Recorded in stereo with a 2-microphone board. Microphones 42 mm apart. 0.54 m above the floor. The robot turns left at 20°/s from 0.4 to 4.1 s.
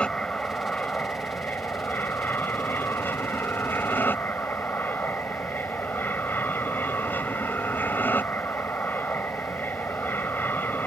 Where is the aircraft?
150° left; by 10.9 s 75° left.